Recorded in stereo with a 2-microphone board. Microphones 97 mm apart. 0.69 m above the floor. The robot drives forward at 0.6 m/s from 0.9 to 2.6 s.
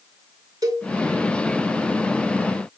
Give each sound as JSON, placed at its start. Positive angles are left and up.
{"t": 0.6, "sound": "a cowbell", "side_deg": -35, "distance_m": 2.0}